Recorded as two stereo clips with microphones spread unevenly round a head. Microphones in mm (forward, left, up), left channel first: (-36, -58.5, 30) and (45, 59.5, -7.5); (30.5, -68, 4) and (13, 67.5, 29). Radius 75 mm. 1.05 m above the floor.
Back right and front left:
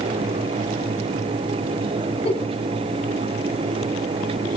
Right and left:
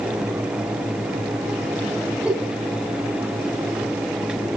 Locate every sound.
2.2 s a giggle: 175° right, 3.5 m